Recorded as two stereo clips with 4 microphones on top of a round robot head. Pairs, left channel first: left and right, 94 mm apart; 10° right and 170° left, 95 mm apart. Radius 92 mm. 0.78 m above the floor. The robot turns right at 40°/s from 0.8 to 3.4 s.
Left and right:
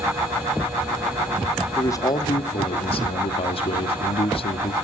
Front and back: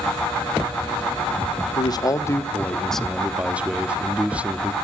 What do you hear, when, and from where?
1.8 s a man speaking: 30° left, 1.7 m; by 4.7 s 95° left, 1.7 m